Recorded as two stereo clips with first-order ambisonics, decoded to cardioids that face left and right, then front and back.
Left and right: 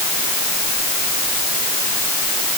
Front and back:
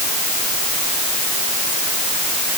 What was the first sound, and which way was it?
Only background noise.